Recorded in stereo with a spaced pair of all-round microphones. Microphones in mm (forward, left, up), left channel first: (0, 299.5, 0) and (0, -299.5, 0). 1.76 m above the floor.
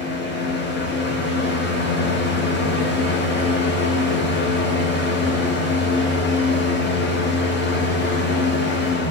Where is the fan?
15° left (ahead or behind), 1.0 m.